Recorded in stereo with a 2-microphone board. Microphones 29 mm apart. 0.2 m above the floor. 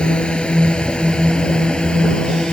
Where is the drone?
35° left (ahead or behind); by 2.5 s 30° left (ahead or behind).